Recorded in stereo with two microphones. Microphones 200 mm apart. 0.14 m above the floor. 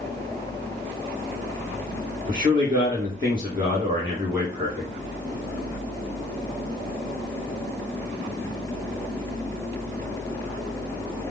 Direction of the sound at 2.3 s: 20° right (ahead or behind).